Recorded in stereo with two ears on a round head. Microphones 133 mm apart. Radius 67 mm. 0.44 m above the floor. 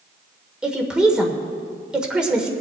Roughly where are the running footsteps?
No running footsteps in this recording.